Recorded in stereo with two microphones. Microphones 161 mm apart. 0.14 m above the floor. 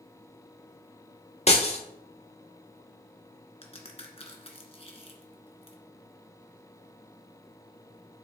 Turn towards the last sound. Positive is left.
turn(degrees=40)  # may be behind; listen again after turning